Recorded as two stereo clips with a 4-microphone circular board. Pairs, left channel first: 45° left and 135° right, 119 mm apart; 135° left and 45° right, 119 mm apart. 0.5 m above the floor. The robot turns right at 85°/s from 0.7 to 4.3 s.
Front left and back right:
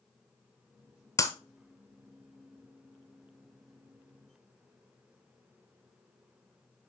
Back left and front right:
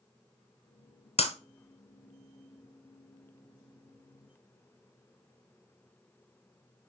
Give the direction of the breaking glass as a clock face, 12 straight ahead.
9 o'clock.